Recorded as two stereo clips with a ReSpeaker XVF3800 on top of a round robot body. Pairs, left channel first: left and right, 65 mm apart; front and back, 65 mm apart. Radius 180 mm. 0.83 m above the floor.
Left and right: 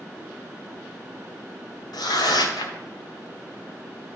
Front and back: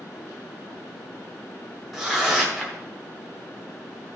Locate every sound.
1.9 s tearing paper: 90° left, 1.0 m